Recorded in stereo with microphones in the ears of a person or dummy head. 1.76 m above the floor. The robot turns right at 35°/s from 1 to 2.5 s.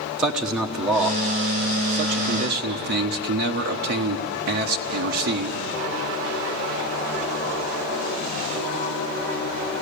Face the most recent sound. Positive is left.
turn(degrees=-120)